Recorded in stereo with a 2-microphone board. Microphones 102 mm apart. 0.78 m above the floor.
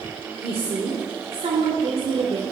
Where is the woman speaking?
70° right (ahead or behind), 2 m.